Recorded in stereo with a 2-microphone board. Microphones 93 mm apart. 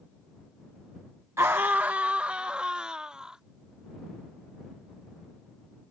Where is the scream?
30° right (ahead or behind); by 3.4 s 10° right (ahead or behind).